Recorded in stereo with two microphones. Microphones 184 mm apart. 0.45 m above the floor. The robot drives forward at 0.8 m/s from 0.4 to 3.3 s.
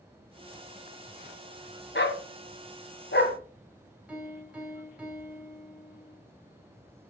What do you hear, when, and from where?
1.9 s a dog barking: 70° left (ahead or behind), 1.5 m; by 3.4 s 65° left (ahead or behind), 1.5 m
4.1 s a piano: 5° right (ahead or behind), 4 m